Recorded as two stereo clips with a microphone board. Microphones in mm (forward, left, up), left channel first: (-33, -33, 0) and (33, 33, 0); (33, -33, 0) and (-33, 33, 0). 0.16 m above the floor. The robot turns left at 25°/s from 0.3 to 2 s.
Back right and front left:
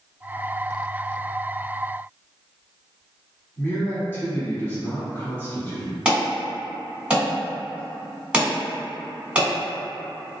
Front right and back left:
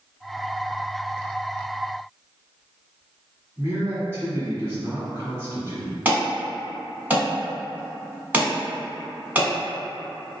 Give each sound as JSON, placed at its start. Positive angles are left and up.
{"t": 3.6, "sound": "a man speaking", "azimuth_deg": 180, "distance_m": 1.4}
{"t": 6.0, "sound": "an alarm", "azimuth_deg": 100, "distance_m": 1.3}